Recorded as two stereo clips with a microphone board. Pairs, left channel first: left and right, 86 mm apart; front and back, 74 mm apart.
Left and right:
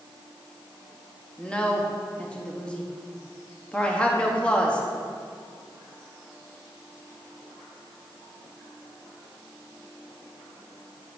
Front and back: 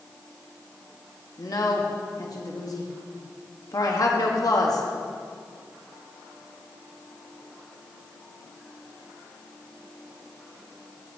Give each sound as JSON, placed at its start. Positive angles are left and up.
{"t": 1.4, "sound": "a woman speaking", "azimuth_deg": 15, "distance_m": 1.0}